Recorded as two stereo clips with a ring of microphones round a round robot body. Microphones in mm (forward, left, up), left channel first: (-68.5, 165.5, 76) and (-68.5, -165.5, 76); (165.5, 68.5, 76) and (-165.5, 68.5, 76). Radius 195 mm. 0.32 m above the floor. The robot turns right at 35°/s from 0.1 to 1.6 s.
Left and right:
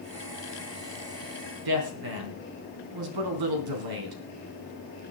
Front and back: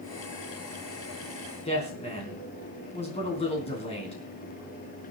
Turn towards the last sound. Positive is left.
turn(degrees=-75)